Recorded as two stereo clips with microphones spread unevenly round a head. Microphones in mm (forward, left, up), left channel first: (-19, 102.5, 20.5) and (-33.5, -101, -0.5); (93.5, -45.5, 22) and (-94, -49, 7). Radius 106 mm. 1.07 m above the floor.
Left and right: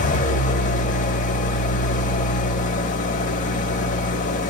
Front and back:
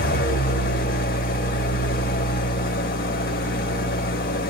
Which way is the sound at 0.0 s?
40° left.